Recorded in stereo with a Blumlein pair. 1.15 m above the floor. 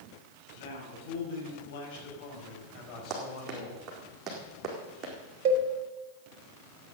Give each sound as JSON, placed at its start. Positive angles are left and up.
{"t": 0.5, "sound": "a man speaking", "azimuth_deg": 55, "distance_m": 6.5}
{"t": 3.1, "sound": "running footsteps", "azimuth_deg": -25, "distance_m": 4.5}
{"t": 5.5, "sound": "a cowbell", "azimuth_deg": -45, "distance_m": 1.7}